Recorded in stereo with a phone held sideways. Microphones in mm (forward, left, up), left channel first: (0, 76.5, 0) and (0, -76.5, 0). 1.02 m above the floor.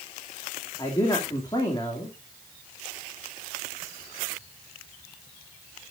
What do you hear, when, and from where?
0.8 s a man speaking: 25° left (ahead or behind), 2.5 m